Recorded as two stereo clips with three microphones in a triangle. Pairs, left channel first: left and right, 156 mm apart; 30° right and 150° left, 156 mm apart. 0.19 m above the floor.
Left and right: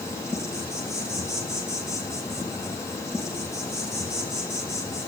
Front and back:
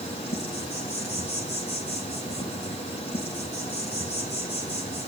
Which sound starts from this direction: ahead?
An insect, at 0.0 s.